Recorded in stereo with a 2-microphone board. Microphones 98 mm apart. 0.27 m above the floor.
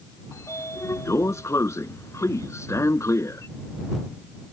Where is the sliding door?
35° left (ahead or behind).